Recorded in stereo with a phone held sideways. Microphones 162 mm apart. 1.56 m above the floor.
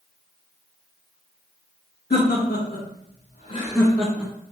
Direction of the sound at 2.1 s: 85° left.